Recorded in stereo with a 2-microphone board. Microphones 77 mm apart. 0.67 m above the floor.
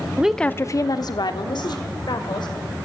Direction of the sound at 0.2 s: 20° right (ahead or behind).